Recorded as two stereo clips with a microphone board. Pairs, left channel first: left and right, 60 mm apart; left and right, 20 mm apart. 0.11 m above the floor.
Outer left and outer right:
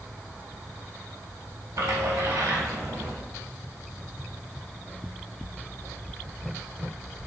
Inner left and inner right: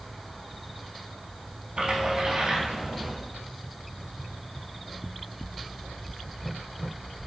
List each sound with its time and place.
1.8 s a splash: 60° right (ahead or behind), 1.1 m